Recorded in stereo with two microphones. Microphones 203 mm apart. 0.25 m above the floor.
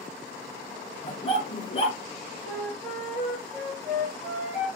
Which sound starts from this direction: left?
A dog barking, at 1.0 s.